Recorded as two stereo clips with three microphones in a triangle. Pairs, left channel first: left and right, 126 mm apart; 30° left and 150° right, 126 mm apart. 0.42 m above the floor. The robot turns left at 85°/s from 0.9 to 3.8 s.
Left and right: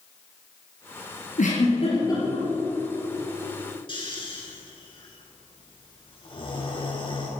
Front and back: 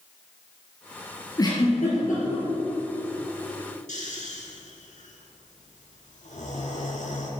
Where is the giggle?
90° left, 4 m; by 2.5 s straight ahead, 4 m.